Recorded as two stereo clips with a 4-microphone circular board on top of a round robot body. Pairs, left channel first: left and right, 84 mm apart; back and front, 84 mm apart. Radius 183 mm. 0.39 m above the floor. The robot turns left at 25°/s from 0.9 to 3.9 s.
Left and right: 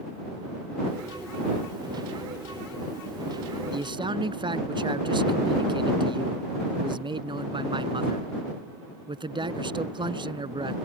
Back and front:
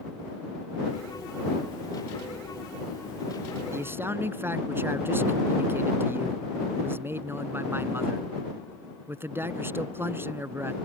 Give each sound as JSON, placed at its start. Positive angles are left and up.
{"t": 3.7, "sound": "a man speaking", "azimuth_deg": -60}